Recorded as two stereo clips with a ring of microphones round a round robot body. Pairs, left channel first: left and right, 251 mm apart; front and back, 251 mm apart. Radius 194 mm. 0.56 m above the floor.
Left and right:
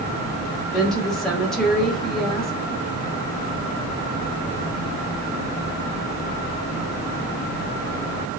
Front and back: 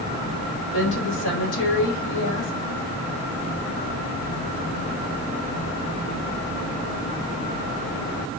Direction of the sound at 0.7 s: Straight ahead.